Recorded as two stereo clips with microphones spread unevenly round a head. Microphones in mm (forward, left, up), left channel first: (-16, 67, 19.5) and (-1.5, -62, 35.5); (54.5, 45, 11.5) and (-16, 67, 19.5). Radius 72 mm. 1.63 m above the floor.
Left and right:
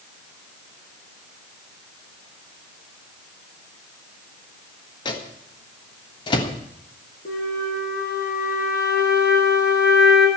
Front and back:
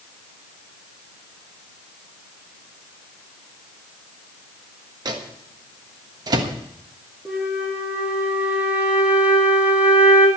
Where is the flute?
95° left, 3 m.